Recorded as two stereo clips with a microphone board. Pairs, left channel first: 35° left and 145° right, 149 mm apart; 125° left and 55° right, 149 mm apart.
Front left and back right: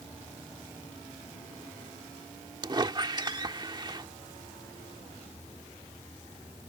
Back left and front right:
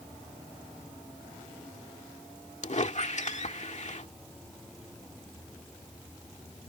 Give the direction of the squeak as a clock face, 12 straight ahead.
7 o'clock.